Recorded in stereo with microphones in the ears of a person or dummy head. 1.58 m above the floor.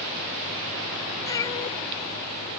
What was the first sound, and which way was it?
A cat meowing, 30° left (ahead or behind).